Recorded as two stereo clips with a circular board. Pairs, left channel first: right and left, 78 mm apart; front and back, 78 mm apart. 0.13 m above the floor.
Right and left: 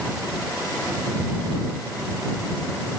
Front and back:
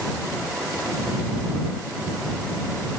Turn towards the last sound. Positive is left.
No sound to turn to.